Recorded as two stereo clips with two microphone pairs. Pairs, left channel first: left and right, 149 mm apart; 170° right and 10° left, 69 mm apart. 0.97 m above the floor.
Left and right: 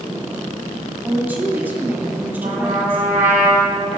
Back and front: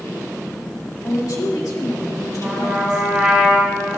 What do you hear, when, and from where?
1.0 s a woman speaking: 165° right, 2 m
2.4 s a trumpet: 65° right, 3.5 m